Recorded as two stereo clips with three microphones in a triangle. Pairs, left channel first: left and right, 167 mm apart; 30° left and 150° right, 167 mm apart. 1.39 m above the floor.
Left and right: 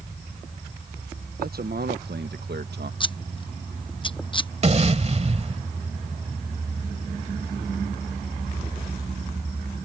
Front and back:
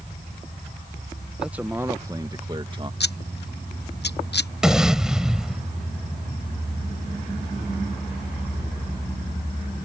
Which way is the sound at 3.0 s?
30° left.